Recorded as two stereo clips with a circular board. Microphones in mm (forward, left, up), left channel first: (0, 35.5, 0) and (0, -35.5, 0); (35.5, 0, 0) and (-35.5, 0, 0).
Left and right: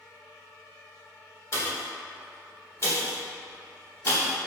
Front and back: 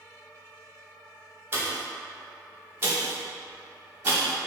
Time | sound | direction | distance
1.5 | a pop | 130° left | 0.8 m